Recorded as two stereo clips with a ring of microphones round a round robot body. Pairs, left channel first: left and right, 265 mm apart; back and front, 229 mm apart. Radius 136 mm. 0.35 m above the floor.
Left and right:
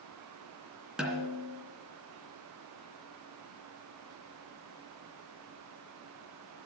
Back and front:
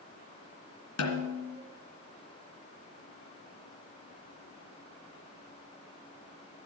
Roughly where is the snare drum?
Behind.